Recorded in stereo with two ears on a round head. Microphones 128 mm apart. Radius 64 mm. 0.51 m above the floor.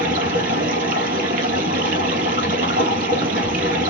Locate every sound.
0.0 s running water: 65° right (ahead or behind), 3 m